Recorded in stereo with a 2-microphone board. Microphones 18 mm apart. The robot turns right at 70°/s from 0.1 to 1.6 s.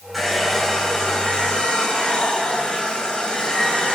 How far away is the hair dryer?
About 7.5 m.